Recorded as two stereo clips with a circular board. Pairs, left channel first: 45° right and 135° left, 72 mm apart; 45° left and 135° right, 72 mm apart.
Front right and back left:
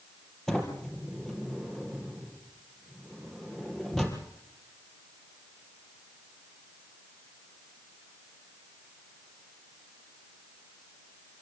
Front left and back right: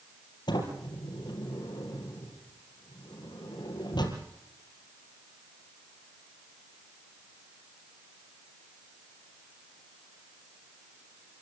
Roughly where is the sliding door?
Ahead left.